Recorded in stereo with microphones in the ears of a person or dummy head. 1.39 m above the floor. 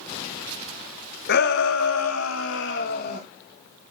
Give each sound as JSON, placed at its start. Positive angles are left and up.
{"t": 1.3, "sound": "a shout", "side_deg": 60, "distance_m": 1.5}